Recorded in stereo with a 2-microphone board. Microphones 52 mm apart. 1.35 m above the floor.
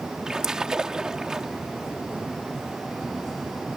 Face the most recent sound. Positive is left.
turn(degrees=-15)  # may be behind; listen again after turning